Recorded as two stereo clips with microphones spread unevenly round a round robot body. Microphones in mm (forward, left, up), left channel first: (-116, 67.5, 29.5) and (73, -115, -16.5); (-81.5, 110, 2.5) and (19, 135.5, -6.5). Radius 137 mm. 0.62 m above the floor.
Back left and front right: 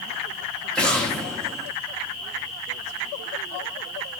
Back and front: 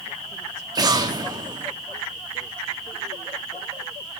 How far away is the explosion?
About 0.9 m.